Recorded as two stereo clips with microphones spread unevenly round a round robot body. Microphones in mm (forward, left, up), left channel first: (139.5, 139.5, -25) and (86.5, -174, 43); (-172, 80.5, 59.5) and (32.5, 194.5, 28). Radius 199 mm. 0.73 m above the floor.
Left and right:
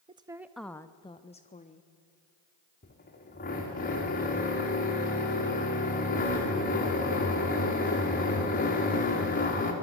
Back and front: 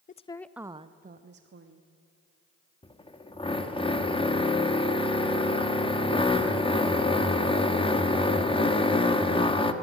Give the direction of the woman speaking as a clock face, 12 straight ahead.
6 o'clock.